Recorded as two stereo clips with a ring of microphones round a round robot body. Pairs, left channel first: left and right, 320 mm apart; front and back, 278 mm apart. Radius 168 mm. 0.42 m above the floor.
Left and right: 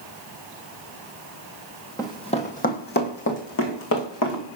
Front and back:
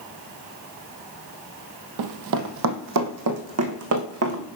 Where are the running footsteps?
170° left, 0.9 m; by 4.5 s 140° left, 2.0 m.